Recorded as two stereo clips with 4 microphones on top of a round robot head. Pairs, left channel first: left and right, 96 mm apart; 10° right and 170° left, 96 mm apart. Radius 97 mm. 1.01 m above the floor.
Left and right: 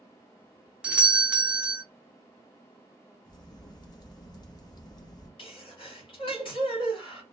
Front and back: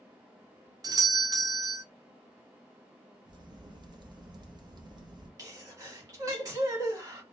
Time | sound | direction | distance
0.8 | a doorbell | 165° right | 0.8 m
3.2 | a crack | 135° left | 1.0 m
5.4 | a sneeze | 120° left | 2 m